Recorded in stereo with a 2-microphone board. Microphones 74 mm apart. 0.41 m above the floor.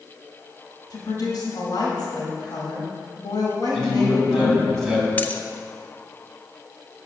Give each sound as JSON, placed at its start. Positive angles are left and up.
{"t": 0.9, "sound": "a woman speaking", "side_deg": 65, "distance_m": 2.0}
{"t": 3.7, "sound": "a man speaking", "side_deg": 5, "distance_m": 3.0}
{"t": 5.2, "sound": "a dropped coin", "side_deg": 25, "distance_m": 0.6}